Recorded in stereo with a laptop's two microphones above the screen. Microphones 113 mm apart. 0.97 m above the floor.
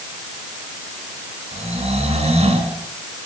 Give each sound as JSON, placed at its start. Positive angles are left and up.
{"t": 1.5, "sound": "snoring", "side_deg": -70, "distance_m": 5.0}